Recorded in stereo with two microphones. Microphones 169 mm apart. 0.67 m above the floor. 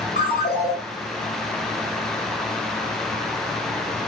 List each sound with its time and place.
0.2 s a ringtone: 80° left, 2.5 m